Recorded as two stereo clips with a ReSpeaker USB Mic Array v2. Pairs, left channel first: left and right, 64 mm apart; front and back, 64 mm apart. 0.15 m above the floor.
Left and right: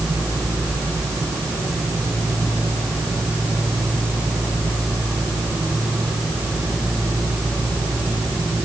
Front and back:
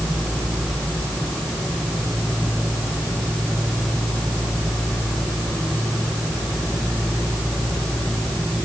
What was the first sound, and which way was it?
Only background noise.